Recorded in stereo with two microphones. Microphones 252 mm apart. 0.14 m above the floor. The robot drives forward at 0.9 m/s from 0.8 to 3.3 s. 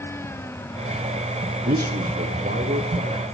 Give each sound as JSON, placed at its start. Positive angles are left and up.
{"t": 1.6, "sound": "a man speaking", "side_deg": -40, "distance_m": 1.3}